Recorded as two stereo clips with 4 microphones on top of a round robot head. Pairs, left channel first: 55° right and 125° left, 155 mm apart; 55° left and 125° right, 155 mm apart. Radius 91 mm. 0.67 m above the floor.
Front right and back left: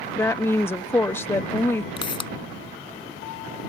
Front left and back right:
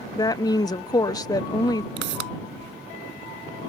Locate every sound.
0.1 s a woman speaking: 10° left
2.0 s a pop: 115° right